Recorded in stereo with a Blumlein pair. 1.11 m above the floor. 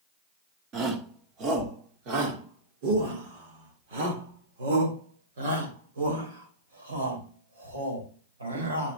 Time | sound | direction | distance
0.7 | a shout | 30° right | 3 m